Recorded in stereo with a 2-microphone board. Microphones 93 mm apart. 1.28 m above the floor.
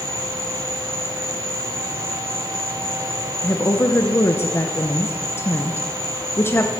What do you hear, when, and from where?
0.0 s an insect: 35° right (ahead or behind), 4.5 m
3.4 s a woman speaking: 25° left (ahead or behind), 0.7 m